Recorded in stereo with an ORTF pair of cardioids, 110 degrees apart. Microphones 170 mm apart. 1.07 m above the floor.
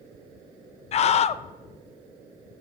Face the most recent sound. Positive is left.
turn(degrees=40)